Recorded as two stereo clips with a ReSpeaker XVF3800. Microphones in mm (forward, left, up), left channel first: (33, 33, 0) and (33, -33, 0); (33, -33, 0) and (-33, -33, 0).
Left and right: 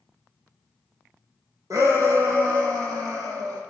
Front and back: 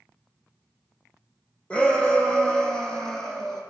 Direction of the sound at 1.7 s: 70° right.